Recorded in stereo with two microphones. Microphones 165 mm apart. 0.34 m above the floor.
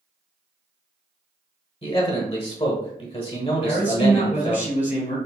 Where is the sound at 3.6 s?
45° left (ahead or behind), 2.0 m.